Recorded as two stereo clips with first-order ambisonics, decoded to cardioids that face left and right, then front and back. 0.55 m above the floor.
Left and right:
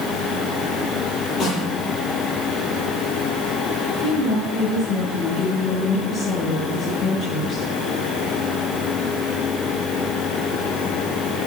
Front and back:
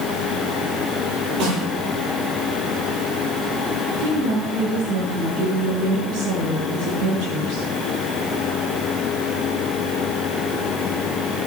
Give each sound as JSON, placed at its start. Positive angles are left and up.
{"t": 1.4, "sound": "a snare drum", "azimuth_deg": 145, "distance_m": 9.0}
{"t": 4.0, "sound": "a woman speaking", "azimuth_deg": 165, "distance_m": 6.5}